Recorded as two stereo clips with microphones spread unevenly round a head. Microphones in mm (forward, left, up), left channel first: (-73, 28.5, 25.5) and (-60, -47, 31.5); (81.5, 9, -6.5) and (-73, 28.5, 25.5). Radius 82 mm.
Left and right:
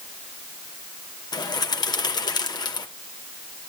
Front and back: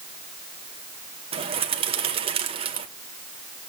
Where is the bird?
125° left, 2 m.